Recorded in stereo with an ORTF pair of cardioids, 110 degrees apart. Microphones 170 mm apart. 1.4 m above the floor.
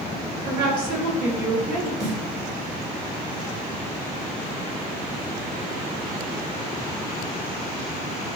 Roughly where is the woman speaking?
Ahead right.